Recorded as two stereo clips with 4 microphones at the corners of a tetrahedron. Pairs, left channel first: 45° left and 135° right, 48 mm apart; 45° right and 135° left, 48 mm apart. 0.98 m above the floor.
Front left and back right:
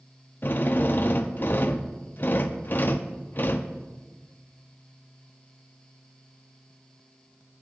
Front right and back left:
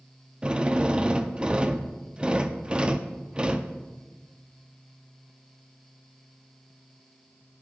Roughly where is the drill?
Left.